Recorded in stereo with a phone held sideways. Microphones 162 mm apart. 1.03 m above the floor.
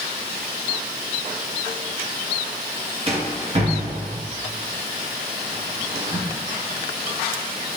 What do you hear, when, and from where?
3.1 s a rattle: 40° right (ahead or behind), 0.9 m